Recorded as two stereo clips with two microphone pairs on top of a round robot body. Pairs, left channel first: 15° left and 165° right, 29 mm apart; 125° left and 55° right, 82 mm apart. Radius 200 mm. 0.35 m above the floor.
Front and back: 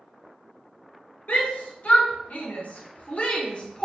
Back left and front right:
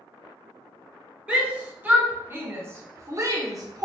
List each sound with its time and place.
1.3 s a shout: 15° left, 2 m; by 3.9 s 35° right, 1.6 m